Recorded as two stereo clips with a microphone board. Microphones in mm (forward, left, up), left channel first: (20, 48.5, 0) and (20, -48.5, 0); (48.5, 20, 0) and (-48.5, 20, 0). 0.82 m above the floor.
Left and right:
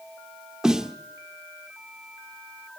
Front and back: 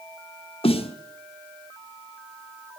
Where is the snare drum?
5° right, 1.0 m.